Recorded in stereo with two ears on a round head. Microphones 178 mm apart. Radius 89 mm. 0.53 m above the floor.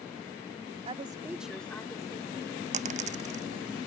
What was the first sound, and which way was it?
A woman speaking, 30° right (ahead or behind).